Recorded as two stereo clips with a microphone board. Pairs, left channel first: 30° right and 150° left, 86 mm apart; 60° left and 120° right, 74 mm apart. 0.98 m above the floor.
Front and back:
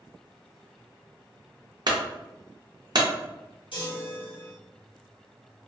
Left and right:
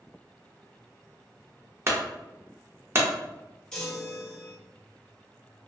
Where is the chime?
20° right, 1.0 m.